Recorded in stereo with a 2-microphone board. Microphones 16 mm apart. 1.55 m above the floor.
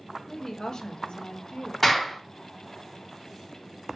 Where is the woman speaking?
20° left (ahead or behind), 0.7 m; by 1.7 s 75° left (ahead or behind), 0.7 m.